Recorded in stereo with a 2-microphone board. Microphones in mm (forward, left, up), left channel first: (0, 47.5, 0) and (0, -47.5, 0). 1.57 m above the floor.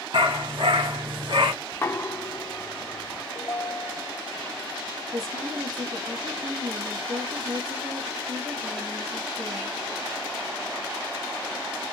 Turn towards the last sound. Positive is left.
turn(degrees=-90)